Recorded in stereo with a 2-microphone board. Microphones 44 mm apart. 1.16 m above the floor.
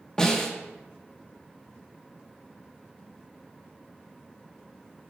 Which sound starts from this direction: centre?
A snare drum, at 0.2 s.